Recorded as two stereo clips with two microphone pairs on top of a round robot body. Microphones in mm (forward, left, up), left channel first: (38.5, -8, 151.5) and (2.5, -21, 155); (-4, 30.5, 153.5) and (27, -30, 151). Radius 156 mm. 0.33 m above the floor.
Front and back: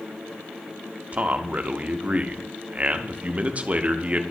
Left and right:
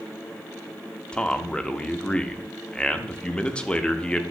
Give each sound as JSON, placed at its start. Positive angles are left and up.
{"t": 1.1, "sound": "a man speaking", "azimuth_deg": -175, "distance_m": 0.9}